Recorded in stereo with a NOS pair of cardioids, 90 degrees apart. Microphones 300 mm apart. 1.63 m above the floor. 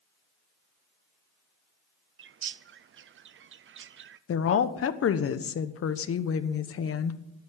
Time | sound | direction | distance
2.2 | a bird | 40° right | 0.6 m
4.3 | a woman speaking | 50° left | 1.1 m